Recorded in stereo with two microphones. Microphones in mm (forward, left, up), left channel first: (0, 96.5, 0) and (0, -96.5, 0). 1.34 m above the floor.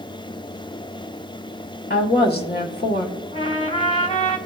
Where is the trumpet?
30° left (ahead or behind), 1.0 m.